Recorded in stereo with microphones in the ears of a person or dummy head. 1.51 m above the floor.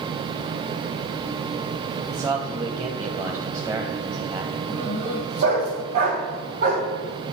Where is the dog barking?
50° right (ahead or behind), 2.5 m.